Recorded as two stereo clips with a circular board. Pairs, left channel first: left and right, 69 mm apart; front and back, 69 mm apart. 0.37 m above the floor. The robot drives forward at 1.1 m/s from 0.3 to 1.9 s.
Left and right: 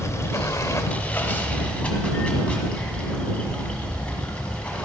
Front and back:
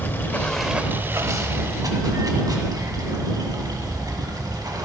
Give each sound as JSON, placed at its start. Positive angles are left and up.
{"t": 0.0, "sound": "running water", "azimuth_deg": 55, "distance_m": 0.7}